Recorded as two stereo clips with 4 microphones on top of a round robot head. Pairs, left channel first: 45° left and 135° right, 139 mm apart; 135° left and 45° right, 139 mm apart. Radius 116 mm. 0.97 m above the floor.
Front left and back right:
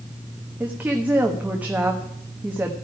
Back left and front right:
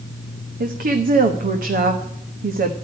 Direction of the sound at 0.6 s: 55° right.